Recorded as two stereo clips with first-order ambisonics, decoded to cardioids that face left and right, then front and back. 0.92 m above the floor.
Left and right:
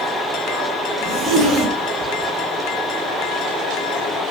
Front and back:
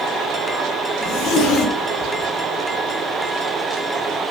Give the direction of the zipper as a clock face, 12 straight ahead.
1 o'clock.